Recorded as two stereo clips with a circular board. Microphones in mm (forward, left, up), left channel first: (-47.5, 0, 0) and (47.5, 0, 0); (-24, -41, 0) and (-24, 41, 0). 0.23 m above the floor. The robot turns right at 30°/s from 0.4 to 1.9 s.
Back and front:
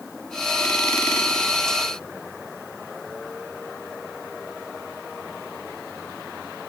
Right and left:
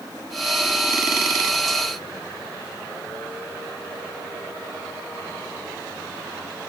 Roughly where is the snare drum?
I don't hear a snare drum.